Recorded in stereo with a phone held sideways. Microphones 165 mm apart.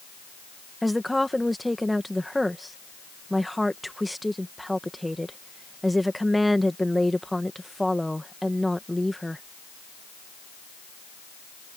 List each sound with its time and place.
0.8 s a woman speaking: centre (ahead or behind)